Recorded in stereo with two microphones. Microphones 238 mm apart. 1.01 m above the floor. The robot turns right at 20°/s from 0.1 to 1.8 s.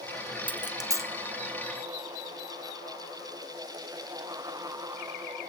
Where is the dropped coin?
20° right (ahead or behind), 0.5 m; by 1.1 s 10° right (ahead or behind), 0.5 m.